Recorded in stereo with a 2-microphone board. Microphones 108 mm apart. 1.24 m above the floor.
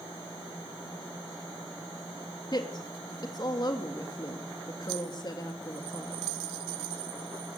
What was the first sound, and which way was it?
A woman speaking, 40° left (ahead or behind).